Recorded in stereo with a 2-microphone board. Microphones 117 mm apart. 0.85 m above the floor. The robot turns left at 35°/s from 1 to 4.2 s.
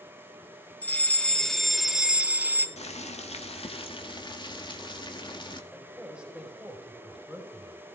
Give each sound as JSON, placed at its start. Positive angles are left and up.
{"t": 0.8, "sound": "a fire alarm", "azimuth_deg": 25, "distance_m": 1.4}
{"t": 2.8, "sound": "boiling", "azimuth_deg": 95, "distance_m": 1.8}
{"t": 5.7, "sound": "a man speaking", "side_deg": -5, "distance_m": 4.5}